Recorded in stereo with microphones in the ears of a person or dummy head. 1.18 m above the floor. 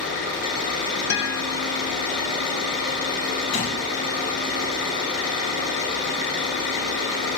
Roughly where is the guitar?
Left.